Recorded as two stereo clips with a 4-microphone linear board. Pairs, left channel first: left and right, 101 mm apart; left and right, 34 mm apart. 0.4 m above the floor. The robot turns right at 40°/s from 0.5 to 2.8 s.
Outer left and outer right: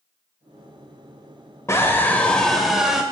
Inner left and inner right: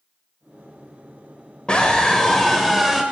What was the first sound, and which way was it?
A scream, 140° left.